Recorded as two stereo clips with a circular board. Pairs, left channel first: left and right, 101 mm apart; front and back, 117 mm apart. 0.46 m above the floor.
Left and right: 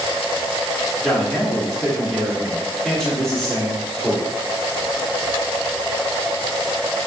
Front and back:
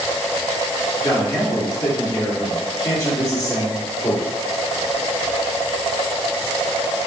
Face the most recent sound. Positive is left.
turn(degrees=5)